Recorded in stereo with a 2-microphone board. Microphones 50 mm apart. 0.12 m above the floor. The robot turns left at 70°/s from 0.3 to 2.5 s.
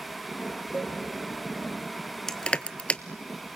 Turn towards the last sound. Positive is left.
turn(degrees=25)  # may be behind; listen again after turning